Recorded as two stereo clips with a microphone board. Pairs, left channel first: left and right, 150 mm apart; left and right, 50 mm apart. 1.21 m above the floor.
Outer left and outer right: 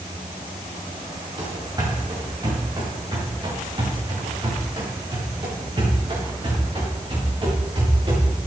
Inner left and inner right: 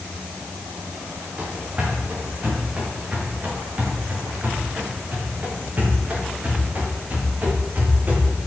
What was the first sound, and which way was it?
Running footsteps, 30° right (ahead or behind).